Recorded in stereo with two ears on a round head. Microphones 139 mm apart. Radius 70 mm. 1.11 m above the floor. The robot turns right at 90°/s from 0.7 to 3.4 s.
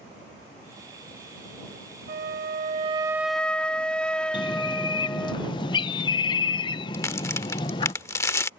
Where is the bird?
30° left (ahead or behind).